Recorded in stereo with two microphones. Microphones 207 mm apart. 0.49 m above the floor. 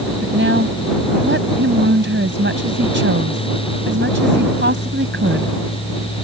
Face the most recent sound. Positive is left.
turn(degrees=-70)  # may be behind; listen again after turning